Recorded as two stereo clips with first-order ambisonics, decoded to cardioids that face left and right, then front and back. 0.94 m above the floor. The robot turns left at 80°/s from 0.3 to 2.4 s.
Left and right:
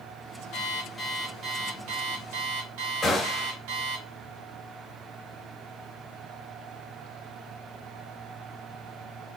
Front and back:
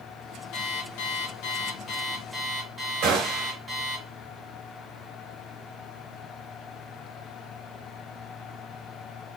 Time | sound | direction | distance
0.5 | an alarm clock | 45° left | 1.6 m
3.0 | a gunshot | straight behind | 1.7 m